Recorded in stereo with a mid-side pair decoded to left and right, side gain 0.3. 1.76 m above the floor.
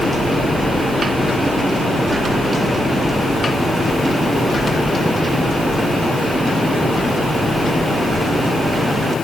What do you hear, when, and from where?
Only background noise.